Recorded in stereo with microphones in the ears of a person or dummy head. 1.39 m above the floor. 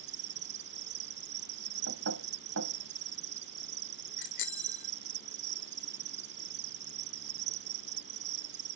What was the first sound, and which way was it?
An insect, 50° right (ahead or behind).